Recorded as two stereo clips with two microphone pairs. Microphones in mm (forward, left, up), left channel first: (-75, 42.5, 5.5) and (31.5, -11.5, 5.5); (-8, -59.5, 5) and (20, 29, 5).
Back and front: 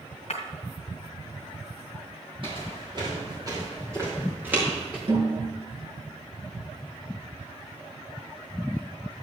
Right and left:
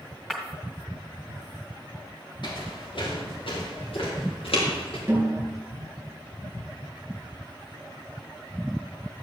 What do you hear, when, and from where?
0.3 s breaking glass: 165° left, 1.6 m
2.4 s footsteps: 70° right, 4.5 m; by 5.0 s 110° right, 4.5 m
5.1 s a snare drum: 5° left, 4.5 m